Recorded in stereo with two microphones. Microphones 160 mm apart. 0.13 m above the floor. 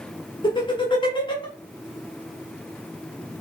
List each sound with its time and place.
0.4 s laughter: 30° left (ahead or behind), 1.2 m